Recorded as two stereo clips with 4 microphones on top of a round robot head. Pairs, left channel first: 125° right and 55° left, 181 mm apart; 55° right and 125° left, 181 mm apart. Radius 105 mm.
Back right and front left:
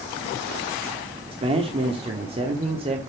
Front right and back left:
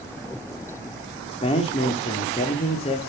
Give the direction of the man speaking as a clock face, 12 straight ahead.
12 o'clock.